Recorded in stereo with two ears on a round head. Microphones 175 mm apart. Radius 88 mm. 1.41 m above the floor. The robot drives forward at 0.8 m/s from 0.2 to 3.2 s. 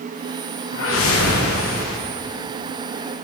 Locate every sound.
0.7 s a whoosh: 70° left (ahead or behind), 1.4 m